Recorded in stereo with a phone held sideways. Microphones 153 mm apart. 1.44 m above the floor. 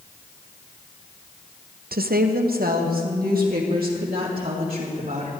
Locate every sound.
1.9 s a woman speaking: 80° right, 0.6 m; by 5.3 s 75° right (ahead or behind), 4 m